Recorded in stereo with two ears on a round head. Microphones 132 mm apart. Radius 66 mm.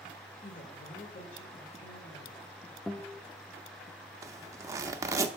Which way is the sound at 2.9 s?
5° left (ahead or behind).